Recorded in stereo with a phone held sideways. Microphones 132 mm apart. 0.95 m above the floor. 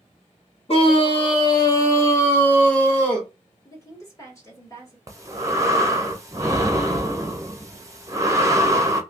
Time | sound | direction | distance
0.7 | a scream | 45° left (ahead or behind) | 0.9 m
3.6 | a woman speaking | 20° left (ahead or behind) | 1.4 m
5.1 | breathing | 25° right (ahead or behind) | 0.7 m